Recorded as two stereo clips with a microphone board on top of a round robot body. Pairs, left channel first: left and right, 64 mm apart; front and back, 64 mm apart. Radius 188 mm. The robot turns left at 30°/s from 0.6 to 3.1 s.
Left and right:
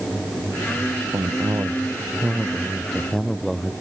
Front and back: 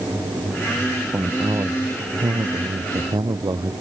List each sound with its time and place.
1.1 s a man speaking: 125° right; by 3.7 s 175° left